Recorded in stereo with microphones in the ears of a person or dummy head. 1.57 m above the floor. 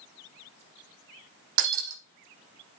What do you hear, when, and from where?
1.6 s breaking glass: 65° right (ahead or behind), 5.5 m